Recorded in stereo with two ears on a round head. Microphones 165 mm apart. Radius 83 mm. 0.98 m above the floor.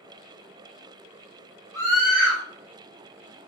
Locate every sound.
1.7 s a scream: 5° left (ahead or behind), 3 m